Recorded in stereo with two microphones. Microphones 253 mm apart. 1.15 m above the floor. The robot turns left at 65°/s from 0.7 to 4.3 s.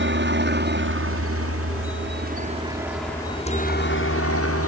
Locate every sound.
0.0 s a helicopter: 50° right (ahead or behind); by 4.7 s 65° left (ahead or behind)